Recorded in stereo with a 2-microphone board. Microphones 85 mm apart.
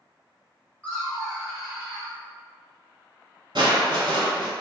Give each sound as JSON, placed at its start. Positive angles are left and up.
{"t": 0.8, "sound": "laughter", "side_deg": 20, "distance_m": 1.3}
{"t": 3.5, "sound": "crushing", "side_deg": -70, "distance_m": 1.1}